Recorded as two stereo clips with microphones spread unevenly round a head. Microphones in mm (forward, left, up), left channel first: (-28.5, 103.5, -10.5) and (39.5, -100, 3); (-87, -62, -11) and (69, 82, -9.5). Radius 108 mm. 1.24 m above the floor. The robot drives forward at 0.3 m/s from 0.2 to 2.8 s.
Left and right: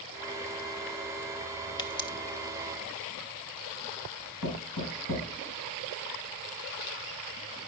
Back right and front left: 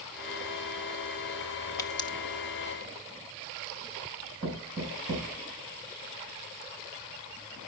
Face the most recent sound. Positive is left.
turn(degrees=115)